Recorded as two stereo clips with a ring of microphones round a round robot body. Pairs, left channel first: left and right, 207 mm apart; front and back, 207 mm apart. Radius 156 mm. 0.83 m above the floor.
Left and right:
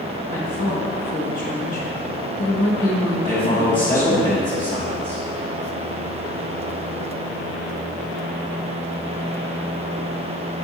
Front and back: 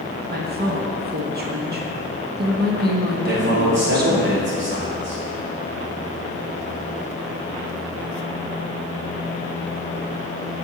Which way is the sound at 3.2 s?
160° left.